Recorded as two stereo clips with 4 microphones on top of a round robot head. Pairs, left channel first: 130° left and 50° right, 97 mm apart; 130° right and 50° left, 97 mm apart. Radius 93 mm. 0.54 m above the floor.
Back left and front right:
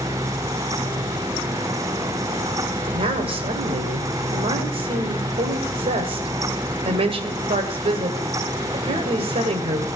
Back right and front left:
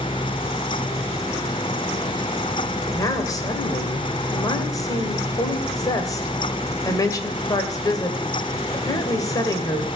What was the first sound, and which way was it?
A woman speaking, 75° right.